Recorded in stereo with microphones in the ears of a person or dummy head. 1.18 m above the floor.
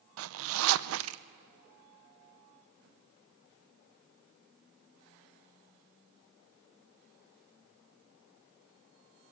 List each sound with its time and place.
0.2 s a zipper: 75° right (ahead or behind), 0.6 m